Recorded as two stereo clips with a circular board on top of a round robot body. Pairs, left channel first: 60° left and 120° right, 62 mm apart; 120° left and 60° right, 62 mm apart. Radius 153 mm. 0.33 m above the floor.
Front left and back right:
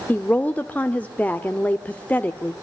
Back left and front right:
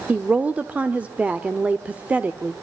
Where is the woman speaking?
Straight ahead, 1.3 m.